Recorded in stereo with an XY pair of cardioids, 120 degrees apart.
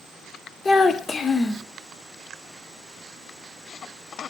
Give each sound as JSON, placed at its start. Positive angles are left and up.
{"t": 0.7, "sound": "a child speaking", "azimuth_deg": 30, "distance_m": 0.7}